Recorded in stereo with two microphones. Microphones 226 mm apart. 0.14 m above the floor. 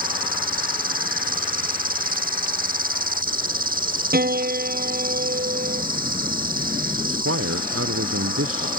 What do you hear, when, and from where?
0.0 s an insect: 40° right (ahead or behind)
4.1 s a piano: 45° right (ahead or behind)
7.0 s a man speaking: 85° right